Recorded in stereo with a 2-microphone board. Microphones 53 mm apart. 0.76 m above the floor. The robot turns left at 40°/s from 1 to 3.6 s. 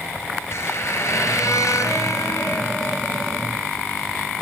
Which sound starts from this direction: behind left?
A squeak, at 0.5 s.